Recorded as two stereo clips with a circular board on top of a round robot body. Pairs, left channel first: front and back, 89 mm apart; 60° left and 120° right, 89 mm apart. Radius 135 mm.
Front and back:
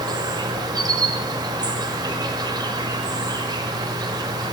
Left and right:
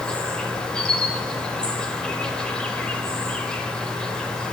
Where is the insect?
140° left, 1.2 m.